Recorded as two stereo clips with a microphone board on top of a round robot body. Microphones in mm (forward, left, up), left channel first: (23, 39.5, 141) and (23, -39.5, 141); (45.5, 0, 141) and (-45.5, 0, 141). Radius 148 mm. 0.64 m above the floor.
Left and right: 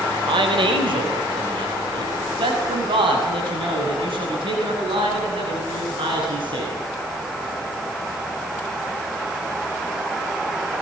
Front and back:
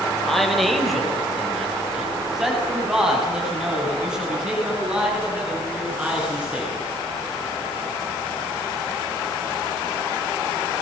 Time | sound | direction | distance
0.3 | a man speaking | 90° right | 4.5 m